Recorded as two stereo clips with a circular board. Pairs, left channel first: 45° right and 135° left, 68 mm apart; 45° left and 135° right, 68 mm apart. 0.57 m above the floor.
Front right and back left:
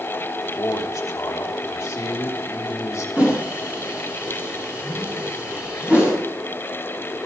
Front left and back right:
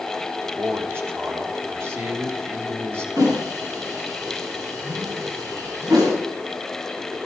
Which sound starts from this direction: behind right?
A whoosh, at 3.2 s.